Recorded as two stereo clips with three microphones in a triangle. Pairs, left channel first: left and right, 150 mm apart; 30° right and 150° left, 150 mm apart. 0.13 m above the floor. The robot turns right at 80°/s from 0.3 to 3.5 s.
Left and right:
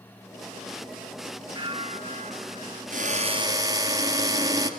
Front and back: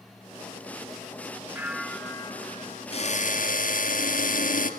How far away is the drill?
About 2 m.